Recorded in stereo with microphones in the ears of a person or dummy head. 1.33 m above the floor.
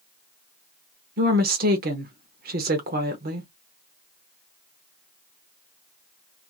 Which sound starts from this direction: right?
A woman speaking, at 1.2 s.